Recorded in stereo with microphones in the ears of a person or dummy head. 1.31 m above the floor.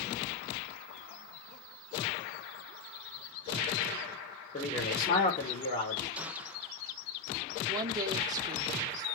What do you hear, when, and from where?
4.5 s a man speaking: 30° left (ahead or behind), 4.5 m
6.2 s a gunshot: 10° right (ahead or behind), 1.0 m
7.7 s a woman speaking: 25° right (ahead or behind), 2.5 m